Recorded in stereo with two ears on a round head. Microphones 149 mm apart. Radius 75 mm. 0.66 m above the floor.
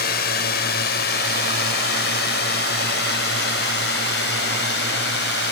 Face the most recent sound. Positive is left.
turn(degrees=70)  # may be behind; listen again after turning